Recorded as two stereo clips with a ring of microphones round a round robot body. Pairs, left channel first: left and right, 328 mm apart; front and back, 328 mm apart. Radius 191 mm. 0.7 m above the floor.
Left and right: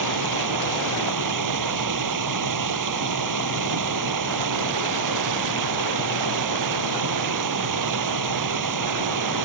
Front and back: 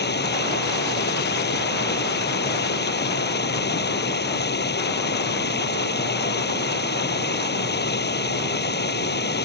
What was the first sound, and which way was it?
Running water, 60° right.